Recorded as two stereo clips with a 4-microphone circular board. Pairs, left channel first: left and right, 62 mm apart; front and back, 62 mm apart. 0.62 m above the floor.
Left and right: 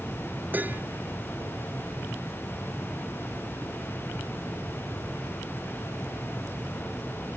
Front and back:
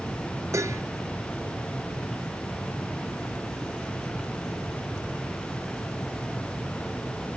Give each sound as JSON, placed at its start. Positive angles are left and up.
{"t": 0.5, "sound": "dishes clattering", "azimuth_deg": -150}